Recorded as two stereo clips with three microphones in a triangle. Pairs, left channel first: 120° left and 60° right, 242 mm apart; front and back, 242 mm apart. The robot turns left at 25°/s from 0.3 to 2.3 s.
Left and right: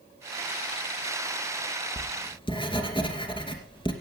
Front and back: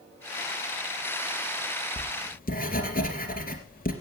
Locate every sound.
2.0 s writing: 60° left, 2.5 m; by 3.9 s 50° left, 2.5 m